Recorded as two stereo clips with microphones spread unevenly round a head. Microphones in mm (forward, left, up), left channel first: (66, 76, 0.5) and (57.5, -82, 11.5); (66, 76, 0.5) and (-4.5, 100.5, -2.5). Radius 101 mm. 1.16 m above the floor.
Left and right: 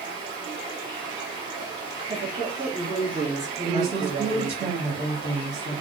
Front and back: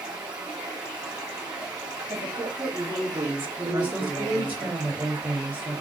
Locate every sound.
0.0 s running water: 160° right, 1.4 m
2.1 s a woman speaking: 155° right, 1.9 m
3.6 s a woman speaking: 140° right, 2.5 m